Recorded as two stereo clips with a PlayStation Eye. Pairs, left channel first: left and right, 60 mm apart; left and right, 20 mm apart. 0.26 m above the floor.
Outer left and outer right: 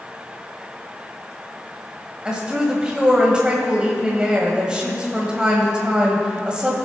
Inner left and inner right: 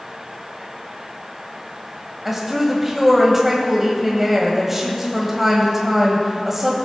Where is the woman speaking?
15° right (ahead or behind), 1.4 m.